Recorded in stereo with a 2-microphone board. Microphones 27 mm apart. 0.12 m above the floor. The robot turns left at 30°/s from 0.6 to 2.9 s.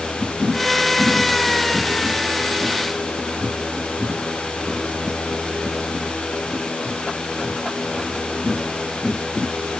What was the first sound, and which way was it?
Only background noise.